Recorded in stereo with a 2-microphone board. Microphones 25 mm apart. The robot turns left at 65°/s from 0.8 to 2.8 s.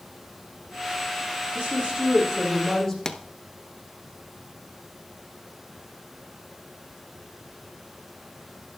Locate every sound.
1.6 s a woman speaking: 100° right, 4 m; by 3.0 s straight behind, 4 m
3.0 s a pop: 25° left (ahead or behind), 0.8 m